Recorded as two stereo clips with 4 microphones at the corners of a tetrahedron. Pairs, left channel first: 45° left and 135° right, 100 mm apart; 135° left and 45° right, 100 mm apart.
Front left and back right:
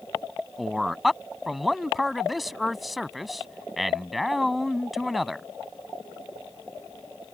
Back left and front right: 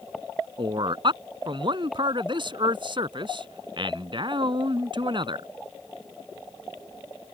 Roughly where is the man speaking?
Ahead right.